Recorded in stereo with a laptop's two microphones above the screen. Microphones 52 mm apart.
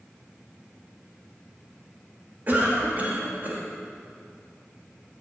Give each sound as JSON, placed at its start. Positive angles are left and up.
{"t": 2.5, "sound": "a cough", "side_deg": -35, "distance_m": 2.0}